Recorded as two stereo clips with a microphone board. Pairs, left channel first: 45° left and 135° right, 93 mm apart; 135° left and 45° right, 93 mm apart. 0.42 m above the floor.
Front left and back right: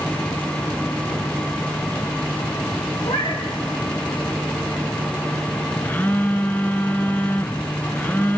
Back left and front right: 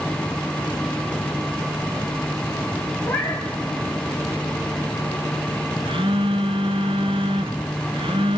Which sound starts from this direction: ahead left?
A cat meowing, at 3.0 s.